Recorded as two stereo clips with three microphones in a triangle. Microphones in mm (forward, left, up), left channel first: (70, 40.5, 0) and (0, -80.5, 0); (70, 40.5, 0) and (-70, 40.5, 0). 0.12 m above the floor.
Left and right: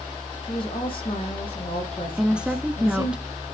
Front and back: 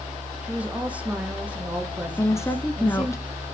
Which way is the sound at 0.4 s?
100° left.